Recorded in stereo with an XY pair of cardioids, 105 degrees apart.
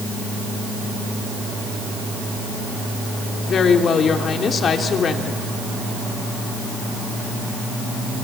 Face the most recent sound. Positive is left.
turn(degrees=50)